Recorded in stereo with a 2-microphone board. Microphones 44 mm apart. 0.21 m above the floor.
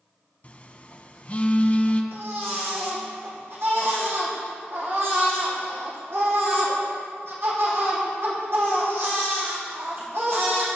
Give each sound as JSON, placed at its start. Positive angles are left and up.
{"t": 0.4, "sound": "a phone buzzing", "side_deg": 35, "distance_m": 0.9}
{"t": 2.1, "sound": "a baby crying", "side_deg": -65, "distance_m": 4.0}